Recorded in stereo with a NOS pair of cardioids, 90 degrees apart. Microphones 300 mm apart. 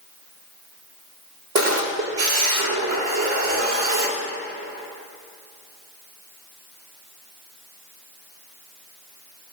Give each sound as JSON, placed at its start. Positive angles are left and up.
{"t": 1.6, "sound": "a camera shutter", "azimuth_deg": -60, "distance_m": 4.0}